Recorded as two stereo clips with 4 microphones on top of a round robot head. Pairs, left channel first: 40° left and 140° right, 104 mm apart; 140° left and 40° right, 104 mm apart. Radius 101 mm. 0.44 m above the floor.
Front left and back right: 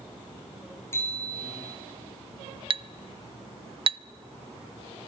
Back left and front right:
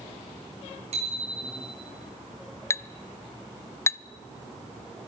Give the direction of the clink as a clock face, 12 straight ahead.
5 o'clock.